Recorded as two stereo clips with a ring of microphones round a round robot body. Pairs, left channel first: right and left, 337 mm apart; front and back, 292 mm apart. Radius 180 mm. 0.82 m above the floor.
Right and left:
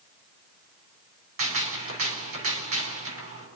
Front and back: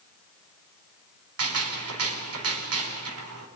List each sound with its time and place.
1.4 s a gunshot: 145° left, 4 m